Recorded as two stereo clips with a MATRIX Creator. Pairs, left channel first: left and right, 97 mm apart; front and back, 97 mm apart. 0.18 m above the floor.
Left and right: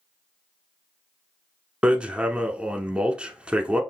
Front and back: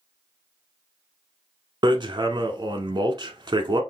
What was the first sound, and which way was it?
Hammering, 165° right.